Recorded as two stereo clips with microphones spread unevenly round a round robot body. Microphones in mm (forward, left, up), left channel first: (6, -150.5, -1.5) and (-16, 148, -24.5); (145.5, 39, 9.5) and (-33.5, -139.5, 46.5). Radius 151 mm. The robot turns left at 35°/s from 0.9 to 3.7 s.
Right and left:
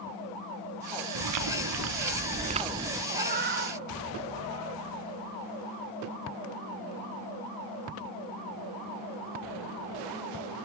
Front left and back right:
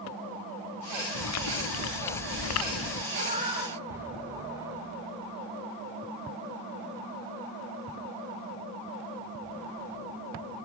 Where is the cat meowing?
165° left, 4 m; by 4.8 s 145° left, 4 m.